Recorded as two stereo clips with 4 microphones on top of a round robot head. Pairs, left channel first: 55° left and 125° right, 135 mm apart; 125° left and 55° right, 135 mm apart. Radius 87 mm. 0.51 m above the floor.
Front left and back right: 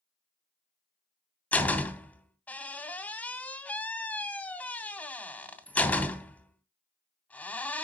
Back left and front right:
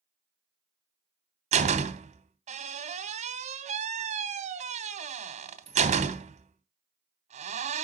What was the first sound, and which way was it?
A door slam, 25° right.